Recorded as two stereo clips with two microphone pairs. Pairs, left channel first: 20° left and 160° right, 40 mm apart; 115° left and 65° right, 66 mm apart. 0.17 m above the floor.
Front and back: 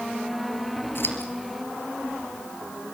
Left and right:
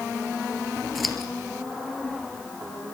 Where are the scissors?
25° left, 2.5 m.